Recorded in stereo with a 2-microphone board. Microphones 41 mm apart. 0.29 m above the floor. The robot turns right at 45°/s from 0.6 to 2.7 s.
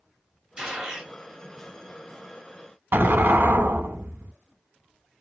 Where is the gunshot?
15° right (ahead or behind), 1.6 m; by 1.1 s 5° right (ahead or behind), 1.6 m.